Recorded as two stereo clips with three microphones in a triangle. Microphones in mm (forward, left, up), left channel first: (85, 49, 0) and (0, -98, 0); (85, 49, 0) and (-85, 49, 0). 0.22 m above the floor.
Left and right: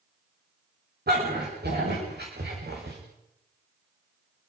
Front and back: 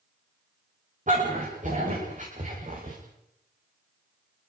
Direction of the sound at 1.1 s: 140° right.